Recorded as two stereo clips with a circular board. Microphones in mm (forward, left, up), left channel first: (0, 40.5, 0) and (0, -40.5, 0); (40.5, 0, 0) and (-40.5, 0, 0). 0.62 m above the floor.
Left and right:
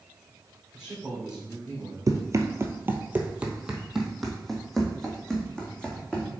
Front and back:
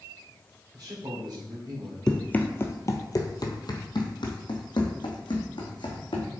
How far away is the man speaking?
About 2 m.